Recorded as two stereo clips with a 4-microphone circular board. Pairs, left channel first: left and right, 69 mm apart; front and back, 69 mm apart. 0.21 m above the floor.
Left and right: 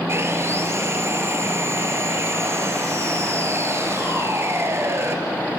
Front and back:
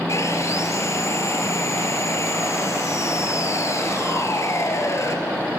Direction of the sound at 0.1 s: 40° right.